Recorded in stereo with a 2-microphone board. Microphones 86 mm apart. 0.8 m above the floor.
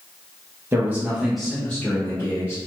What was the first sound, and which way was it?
A man speaking, 25° right (ahead or behind).